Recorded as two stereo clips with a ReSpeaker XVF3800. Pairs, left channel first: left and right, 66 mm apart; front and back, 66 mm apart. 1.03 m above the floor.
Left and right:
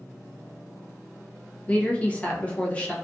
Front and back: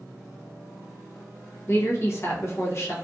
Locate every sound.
1.7 s a woman speaking: 25° left, 0.6 m